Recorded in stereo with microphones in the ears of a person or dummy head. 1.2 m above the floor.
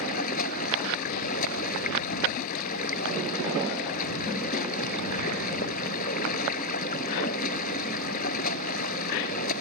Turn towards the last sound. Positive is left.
turn(degrees=55)  # may be behind; listen again after turning